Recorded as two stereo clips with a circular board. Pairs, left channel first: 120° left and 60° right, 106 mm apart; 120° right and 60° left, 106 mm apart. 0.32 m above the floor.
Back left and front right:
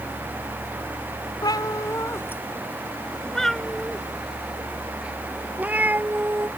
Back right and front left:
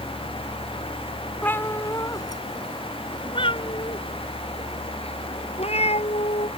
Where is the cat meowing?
170° left; by 6.5 s 130° right.